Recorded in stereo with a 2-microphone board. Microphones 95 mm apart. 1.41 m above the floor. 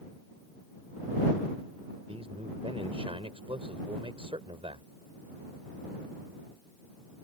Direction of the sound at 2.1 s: 85° right.